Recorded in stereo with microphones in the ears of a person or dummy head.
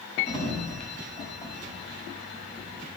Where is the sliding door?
25° left (ahead or behind), 6.5 m.